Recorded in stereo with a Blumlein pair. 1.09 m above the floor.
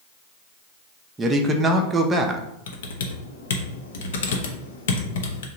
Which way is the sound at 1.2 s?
15° right.